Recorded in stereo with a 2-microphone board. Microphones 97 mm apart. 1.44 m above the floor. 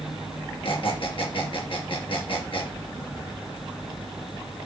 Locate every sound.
0.6 s a squeak: 65° left (ahead or behind), 5 m